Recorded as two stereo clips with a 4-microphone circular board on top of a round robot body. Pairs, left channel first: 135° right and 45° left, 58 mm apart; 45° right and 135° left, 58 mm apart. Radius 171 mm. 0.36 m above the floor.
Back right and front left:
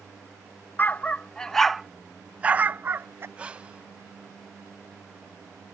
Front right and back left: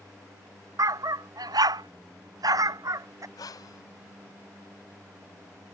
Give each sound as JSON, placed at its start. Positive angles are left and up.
{"t": 0.8, "sound": "a dog barking", "azimuth_deg": 165}
{"t": 3.4, "sound": "breathing", "azimuth_deg": -25}